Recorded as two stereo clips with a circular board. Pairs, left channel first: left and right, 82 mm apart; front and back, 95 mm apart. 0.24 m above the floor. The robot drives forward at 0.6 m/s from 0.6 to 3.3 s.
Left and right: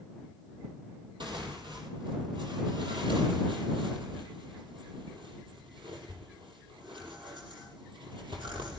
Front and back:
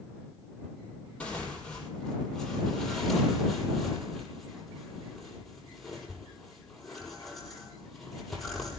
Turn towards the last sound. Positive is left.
turn(degrees=-85)